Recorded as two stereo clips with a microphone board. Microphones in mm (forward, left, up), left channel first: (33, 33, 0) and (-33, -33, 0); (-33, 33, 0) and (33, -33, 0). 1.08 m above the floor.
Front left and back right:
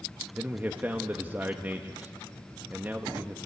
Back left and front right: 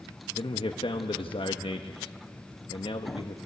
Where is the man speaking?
150° left, 1.2 m.